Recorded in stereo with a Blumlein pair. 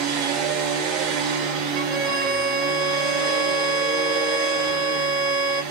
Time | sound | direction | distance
0.0 | a machine running | 35° right | 1.1 m
1.8 | a violin | 30° right | 0.8 m